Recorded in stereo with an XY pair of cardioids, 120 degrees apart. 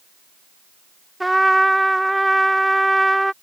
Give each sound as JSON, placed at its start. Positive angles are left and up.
{"t": 1.2, "sound": "a trumpet", "azimuth_deg": -5}